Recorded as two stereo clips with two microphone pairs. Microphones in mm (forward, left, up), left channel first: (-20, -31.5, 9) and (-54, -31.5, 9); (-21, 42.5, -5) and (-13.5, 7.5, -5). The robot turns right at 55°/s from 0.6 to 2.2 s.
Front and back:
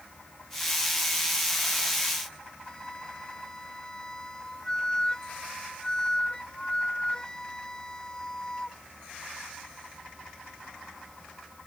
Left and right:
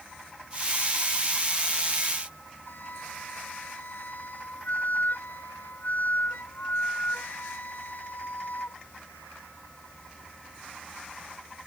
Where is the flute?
70° left.